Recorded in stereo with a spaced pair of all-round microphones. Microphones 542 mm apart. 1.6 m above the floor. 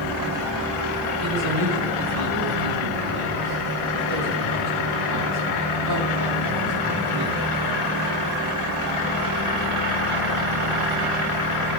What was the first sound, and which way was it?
A man speaking, 85° right.